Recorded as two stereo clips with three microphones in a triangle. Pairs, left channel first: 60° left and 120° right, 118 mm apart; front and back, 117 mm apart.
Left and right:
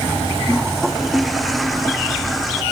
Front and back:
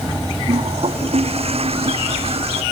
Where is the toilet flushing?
150° left.